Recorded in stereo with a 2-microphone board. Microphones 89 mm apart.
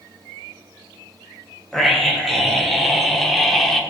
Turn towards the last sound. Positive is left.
turn(degrees=5)  # may be behind; listen again after turning